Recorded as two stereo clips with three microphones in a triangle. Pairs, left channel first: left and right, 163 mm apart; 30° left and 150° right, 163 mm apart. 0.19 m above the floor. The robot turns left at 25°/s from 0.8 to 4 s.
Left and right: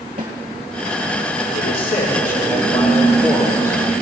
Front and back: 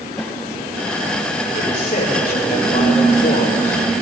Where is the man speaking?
75° left, 5 m; by 3.8 s 20° left, 5 m.